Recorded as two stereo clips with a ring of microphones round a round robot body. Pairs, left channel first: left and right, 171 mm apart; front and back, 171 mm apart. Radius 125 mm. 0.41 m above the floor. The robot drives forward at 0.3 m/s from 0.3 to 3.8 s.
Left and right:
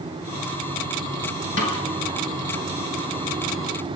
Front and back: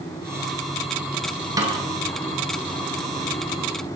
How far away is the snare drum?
About 5.5 m.